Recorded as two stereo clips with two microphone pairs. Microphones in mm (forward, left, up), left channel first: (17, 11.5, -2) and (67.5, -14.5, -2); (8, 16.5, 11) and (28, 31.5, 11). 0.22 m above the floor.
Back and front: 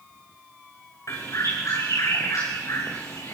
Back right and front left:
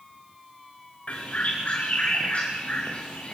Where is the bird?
175° right, 6 m.